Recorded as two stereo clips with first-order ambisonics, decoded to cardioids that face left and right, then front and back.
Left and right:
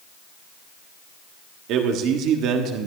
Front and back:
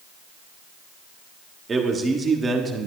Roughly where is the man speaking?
Right.